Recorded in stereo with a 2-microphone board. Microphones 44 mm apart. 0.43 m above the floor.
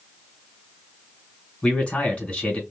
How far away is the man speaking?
About 2.5 m.